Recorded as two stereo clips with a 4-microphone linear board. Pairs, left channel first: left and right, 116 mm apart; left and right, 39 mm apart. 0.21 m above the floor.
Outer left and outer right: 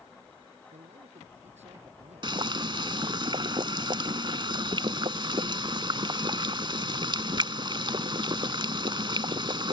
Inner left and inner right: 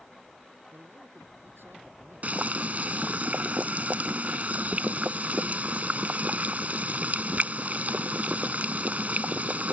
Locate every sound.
0.7 s a man speaking: 70° right (ahead or behind)
2.2 s boiling: 40° right (ahead or behind)